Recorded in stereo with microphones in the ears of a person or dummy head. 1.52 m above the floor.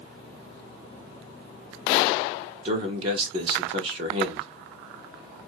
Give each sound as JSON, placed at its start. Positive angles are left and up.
{"t": 2.6, "sound": "a man speaking", "side_deg": -35, "distance_m": 0.9}